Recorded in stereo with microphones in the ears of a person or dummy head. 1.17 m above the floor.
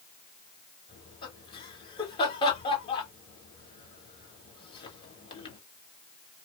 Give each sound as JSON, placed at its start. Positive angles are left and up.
{"t": 0.9, "sound": "laughter", "side_deg": 20, "distance_m": 1.6}